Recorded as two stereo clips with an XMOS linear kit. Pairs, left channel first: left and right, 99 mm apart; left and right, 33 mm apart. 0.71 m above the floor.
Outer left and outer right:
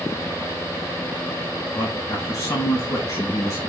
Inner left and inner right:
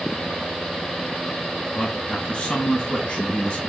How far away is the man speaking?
About 1.3 m.